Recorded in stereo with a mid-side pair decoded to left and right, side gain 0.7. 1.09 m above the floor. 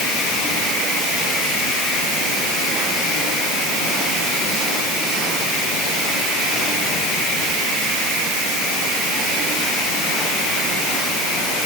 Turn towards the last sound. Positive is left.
No sound to turn to.